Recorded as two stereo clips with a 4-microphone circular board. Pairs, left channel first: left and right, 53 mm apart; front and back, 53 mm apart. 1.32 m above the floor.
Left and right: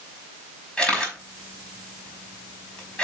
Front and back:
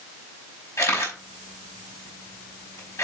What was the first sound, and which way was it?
A camera shutter, 20° left.